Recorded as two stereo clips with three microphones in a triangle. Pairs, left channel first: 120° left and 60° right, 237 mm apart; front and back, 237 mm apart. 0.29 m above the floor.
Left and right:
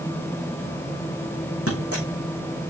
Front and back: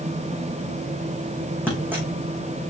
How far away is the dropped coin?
About 4 m.